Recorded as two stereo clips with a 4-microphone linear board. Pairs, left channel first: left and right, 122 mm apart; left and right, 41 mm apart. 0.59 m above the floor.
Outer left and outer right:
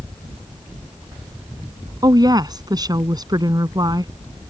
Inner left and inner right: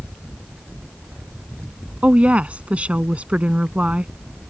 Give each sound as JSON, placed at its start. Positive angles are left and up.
{"t": 2.0, "sound": "a woman speaking", "side_deg": -35}